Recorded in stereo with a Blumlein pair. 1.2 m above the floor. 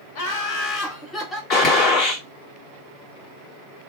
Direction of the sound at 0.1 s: 45° left.